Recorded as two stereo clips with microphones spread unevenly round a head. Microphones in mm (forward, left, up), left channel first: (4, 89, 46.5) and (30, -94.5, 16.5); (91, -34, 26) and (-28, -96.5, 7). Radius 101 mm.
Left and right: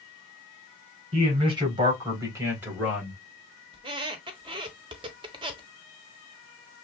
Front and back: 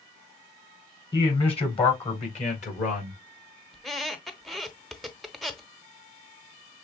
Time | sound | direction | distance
1.1 | a man speaking | 25° right | 4 m
3.7 | a squeak | 35° right | 0.8 m